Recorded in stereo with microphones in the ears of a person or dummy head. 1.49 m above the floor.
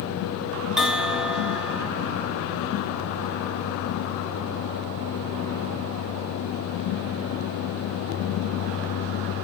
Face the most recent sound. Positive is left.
turn(degrees=0)  # may be behind; listen again after turning